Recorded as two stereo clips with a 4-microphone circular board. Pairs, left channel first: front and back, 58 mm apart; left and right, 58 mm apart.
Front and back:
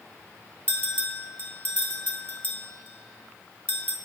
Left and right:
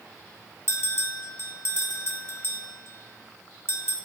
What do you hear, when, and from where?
0.7 s a bell: 55° left, 1.0 m